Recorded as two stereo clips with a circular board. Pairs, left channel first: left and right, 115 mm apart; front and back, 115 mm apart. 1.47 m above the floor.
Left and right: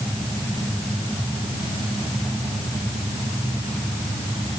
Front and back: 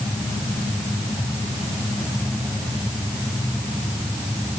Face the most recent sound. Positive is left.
No sound to turn to.